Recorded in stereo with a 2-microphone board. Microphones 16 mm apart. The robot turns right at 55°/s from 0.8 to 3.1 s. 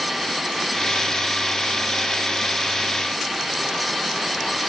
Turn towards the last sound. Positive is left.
No sound to turn to.